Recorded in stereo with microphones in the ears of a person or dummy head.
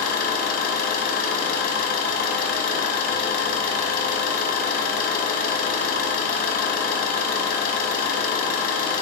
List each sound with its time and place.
0.0 s an engine running: 60° left (ahead or behind), 1.1 m